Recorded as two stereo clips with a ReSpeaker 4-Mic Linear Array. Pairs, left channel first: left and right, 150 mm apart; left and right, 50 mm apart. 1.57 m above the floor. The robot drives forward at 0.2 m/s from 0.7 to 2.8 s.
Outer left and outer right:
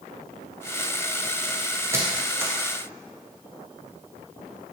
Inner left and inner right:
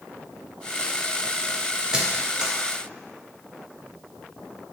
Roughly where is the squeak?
Centre.